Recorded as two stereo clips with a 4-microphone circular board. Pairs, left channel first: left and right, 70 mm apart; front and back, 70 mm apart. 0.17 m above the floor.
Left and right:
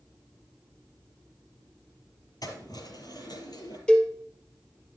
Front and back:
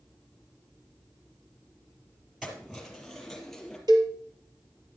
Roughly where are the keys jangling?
Left.